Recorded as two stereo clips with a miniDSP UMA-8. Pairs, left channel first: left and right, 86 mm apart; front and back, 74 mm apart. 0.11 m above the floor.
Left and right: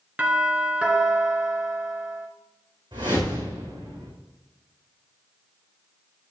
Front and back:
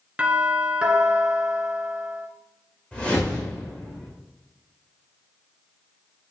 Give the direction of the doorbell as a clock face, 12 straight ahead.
4 o'clock.